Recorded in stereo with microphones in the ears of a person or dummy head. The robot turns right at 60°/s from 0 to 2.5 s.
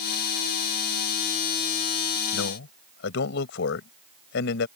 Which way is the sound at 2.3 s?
75° left (ahead or behind).